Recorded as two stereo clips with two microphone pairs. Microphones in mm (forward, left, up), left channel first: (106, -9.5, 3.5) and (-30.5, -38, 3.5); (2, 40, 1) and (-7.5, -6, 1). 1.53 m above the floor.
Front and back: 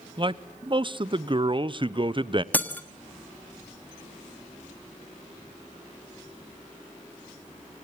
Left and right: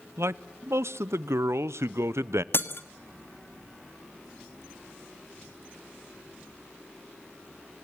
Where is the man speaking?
110° right, 0.7 m.